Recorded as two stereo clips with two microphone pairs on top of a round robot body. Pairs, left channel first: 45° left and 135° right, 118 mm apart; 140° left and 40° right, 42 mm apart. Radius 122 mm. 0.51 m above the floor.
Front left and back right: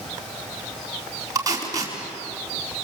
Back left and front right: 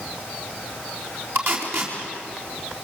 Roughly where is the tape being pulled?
Right.